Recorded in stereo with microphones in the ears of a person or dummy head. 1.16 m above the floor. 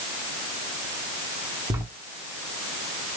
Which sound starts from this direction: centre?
Writing, at 1.7 s.